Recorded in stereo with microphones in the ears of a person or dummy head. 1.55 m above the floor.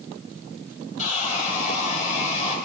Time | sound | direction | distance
1.0 | sawing | 35° left (ahead or behind) | 2.5 m